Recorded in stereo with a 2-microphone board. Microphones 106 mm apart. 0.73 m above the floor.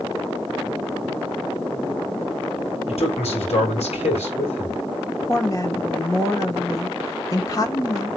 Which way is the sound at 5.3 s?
35° left (ahead or behind).